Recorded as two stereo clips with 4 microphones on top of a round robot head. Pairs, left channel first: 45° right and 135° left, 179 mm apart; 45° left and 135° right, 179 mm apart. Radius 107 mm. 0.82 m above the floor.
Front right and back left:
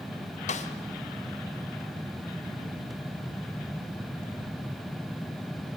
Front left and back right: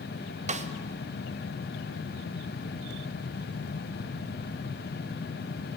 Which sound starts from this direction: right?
A snare drum, at 0.5 s.